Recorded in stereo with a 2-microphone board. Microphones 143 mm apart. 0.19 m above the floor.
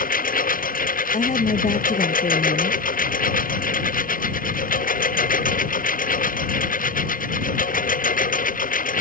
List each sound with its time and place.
0.0 s a lawn mower: 80° left; by 9.0 s 70° left (ahead or behind)
1.1 s a woman speaking: 55° left (ahead or behind)